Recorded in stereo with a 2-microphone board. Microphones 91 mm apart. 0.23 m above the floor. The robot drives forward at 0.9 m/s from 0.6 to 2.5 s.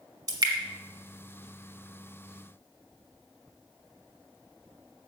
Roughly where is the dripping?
Right.